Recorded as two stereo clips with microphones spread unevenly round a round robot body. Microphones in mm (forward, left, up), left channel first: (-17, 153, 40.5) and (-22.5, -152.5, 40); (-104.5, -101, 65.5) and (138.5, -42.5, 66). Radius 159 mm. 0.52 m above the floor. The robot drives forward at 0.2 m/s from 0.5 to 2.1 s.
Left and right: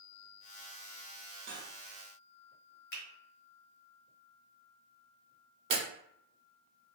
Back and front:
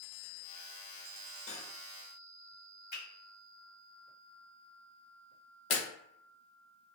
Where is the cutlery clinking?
150° right, 1.0 m.